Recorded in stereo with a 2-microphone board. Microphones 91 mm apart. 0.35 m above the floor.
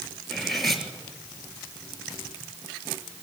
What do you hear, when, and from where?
0.3 s cutlery clinking: centre (ahead or behind), 3.5 m